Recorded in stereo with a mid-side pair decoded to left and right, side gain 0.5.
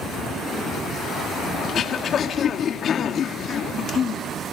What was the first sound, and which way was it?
Throat clearing, 50° left.